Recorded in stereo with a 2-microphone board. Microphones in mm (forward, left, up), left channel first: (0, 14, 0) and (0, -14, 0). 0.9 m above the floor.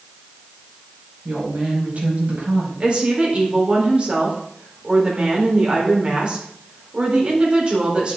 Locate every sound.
1.2 s a woman speaking: 50° right (ahead or behind), 5.5 m
2.8 s a woman speaking: 40° right (ahead or behind), 3.5 m